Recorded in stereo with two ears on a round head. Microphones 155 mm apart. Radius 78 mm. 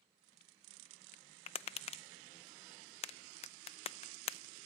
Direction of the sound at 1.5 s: 35° left (ahead or behind).